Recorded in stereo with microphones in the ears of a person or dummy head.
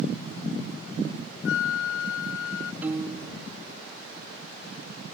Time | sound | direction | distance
1.4 | a flute | 80° left | ?
2.8 | a piano | 15° right (ahead or behind) | ?